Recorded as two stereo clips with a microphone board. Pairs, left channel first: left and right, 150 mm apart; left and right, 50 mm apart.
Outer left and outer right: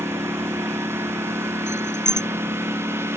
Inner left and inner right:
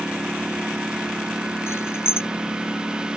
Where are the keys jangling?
55° left (ahead or behind).